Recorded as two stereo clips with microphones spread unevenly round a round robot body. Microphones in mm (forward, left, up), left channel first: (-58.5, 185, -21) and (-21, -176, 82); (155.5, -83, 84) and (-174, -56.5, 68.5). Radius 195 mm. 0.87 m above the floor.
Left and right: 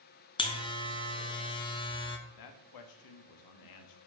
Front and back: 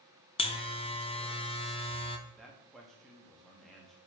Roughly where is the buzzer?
Ahead left.